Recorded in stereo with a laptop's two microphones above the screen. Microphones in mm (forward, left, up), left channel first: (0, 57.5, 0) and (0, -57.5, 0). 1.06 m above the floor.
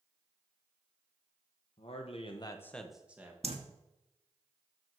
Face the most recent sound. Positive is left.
turn(degrees=-60)  # may be behind; listen again after turning